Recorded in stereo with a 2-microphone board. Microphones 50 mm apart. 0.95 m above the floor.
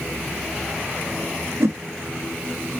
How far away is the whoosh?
About 0.8 m.